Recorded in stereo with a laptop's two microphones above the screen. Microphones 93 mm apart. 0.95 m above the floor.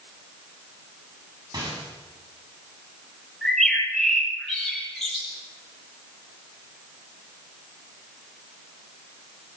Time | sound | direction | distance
1.5 | a rattle | 45° right (ahead or behind) | 7.5 m
3.4 | a bird | centre (ahead or behind) | 9 m